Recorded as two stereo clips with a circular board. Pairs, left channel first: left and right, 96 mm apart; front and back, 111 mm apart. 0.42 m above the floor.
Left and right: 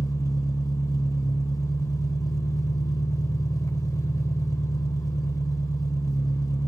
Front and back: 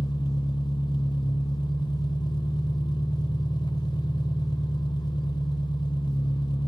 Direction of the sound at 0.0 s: 40° left.